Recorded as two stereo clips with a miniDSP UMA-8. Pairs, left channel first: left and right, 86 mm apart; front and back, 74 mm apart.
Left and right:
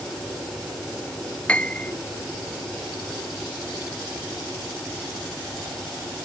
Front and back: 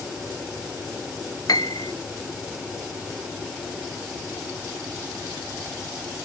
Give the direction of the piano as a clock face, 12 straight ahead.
11 o'clock.